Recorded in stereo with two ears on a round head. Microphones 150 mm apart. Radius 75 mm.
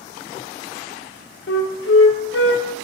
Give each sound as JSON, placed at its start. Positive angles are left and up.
{"t": 1.5, "sound": "a flute", "side_deg": 75, "distance_m": 0.5}